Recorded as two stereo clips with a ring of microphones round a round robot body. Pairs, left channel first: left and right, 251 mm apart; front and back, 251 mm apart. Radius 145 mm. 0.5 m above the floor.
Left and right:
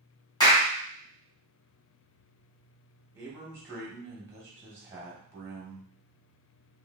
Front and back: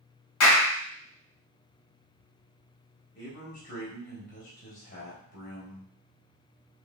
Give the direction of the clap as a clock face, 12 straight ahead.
11 o'clock.